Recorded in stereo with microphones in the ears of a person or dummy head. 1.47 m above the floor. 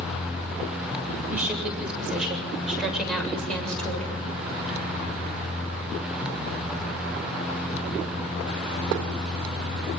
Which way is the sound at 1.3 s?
10° right (ahead or behind).